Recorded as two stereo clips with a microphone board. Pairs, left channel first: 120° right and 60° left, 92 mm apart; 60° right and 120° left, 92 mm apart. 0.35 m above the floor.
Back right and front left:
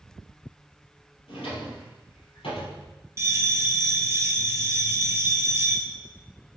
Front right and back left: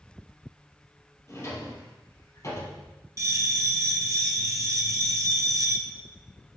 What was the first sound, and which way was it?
A drawer, 115° right.